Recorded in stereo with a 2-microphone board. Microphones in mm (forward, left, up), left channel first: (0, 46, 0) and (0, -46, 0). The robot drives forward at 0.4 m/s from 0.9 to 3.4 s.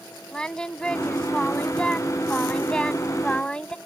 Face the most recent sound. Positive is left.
turn(degrees=10)  # may be behind; listen again after turning